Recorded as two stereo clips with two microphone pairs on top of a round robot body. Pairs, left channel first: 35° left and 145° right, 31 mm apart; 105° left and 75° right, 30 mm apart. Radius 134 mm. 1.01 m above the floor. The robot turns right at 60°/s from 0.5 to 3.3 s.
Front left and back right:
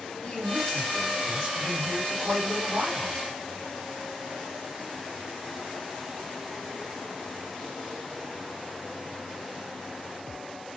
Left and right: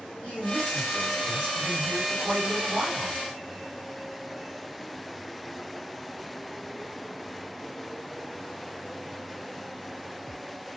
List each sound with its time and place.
0.2 s a man speaking: 95° left, 1.7 m; by 3.2 s 100° right, 1.7 m